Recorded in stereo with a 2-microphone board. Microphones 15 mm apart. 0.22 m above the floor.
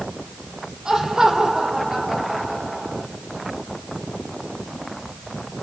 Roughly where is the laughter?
Right.